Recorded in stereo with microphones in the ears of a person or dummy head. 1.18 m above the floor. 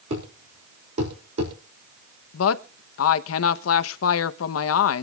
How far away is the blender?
No blender in this recording.